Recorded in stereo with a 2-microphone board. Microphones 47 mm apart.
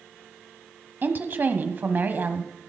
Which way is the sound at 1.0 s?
45° right (ahead or behind).